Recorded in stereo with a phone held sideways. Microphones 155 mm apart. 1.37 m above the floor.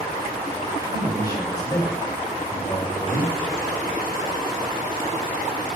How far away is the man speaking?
About 7 m.